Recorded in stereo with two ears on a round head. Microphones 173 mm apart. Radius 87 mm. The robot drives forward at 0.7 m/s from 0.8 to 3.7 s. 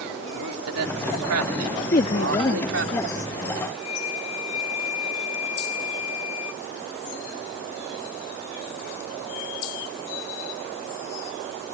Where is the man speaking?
85° right; by 2.9 s 65° right (ahead or behind).